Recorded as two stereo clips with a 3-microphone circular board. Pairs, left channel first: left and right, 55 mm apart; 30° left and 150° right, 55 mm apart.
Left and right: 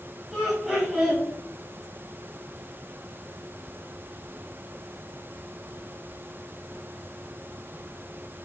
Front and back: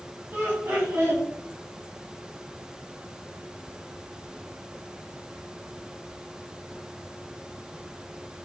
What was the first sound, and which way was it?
Laughter, straight behind.